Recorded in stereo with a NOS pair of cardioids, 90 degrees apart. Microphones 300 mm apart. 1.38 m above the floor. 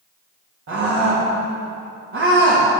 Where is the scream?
45° right, 3 m.